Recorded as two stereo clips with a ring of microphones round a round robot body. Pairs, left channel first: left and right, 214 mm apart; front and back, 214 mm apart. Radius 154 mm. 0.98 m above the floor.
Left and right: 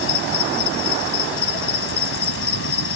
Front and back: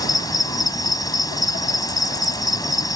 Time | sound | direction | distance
0.0 | an insect | 75° left | ?